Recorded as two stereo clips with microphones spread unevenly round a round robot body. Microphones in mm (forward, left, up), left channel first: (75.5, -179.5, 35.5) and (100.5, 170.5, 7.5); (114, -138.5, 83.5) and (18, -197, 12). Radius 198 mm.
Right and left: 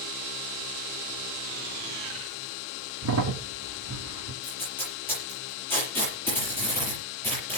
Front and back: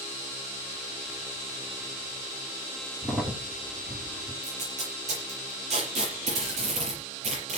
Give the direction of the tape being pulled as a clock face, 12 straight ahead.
6 o'clock.